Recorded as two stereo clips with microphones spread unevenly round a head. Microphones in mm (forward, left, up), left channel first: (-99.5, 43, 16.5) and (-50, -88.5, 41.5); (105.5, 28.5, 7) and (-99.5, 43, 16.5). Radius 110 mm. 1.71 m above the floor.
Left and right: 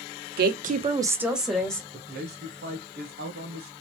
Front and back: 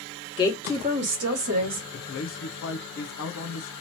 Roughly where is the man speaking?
Ahead right.